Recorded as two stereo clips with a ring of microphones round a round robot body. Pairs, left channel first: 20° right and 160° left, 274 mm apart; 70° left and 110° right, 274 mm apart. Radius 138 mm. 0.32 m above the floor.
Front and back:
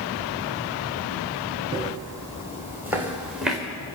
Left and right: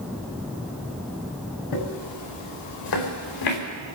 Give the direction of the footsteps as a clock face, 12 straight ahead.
9 o'clock.